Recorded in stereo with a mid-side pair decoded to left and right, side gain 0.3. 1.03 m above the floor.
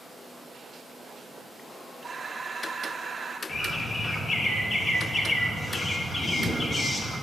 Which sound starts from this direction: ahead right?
Breathing, at 2.0 s.